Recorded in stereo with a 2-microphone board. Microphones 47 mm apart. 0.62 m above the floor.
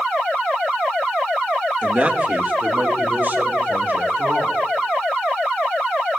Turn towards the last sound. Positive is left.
turn(degrees=-50)  # may be behind; listen again after turning